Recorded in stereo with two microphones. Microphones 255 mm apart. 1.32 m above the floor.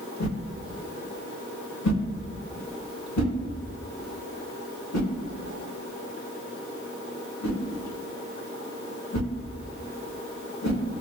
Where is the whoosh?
75° left (ahead or behind), 0.8 m.